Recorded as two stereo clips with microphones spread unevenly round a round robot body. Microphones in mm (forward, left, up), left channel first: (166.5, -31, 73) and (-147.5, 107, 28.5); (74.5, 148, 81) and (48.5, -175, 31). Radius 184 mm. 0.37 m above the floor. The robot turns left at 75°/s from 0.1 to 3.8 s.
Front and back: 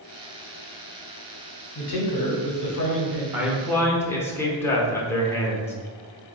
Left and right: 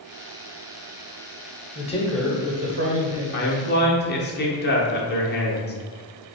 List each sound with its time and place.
1.8 s a man speaking: 20° left, 1.2 m; by 3.2 s 90° right, 1.2 m
3.3 s a man speaking: 105° left, 0.9 m; by 5.7 s 70° left, 0.9 m